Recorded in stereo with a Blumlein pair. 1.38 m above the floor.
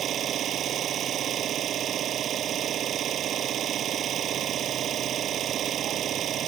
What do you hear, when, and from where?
0.0 s an engine running: 25° right